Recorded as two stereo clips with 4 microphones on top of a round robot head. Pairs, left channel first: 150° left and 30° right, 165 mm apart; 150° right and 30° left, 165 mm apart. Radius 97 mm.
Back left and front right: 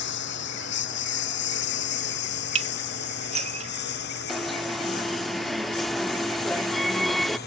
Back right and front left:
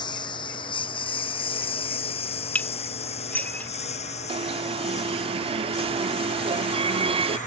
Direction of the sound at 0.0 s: 150° left.